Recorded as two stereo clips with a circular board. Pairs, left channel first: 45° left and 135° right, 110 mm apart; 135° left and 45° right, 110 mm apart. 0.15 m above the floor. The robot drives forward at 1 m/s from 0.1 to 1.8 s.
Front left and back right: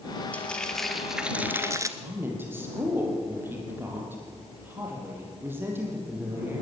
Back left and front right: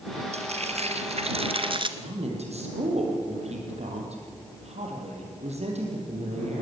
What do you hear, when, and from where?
0.3 s frying: 30° right, 2 m; by 1.9 s 75° right, 1.3 m
2.0 s a woman speaking: 65° right, 5 m